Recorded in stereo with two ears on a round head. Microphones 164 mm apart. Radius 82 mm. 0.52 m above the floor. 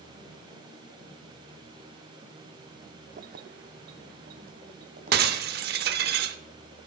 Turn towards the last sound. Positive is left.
turn(degrees=-55)  # may be behind; listen again after turning